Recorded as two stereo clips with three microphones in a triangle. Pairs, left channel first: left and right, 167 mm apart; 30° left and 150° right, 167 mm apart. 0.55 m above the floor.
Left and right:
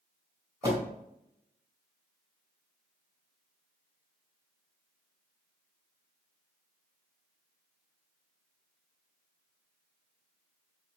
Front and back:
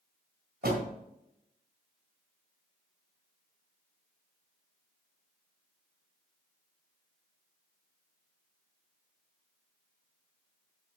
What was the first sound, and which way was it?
A door slam, 160° right.